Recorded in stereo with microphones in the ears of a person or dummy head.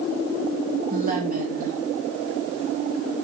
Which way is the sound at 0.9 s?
45° right (ahead or behind).